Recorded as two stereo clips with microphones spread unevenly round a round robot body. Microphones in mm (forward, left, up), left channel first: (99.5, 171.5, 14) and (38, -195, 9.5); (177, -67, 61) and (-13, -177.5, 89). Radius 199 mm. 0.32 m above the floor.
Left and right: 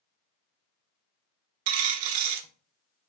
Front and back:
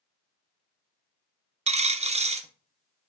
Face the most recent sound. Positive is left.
turn(degrees=-80)